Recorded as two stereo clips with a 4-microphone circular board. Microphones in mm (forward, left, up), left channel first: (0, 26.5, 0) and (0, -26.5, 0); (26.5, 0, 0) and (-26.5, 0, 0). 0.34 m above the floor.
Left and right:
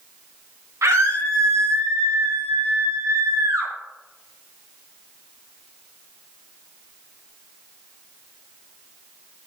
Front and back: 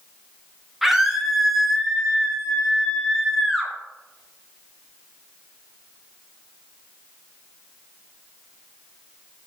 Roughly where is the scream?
Right.